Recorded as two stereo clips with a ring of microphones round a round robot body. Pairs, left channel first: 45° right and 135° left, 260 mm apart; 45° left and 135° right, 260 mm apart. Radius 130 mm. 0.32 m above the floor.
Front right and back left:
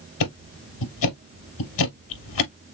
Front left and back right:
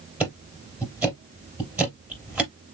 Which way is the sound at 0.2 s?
50° right.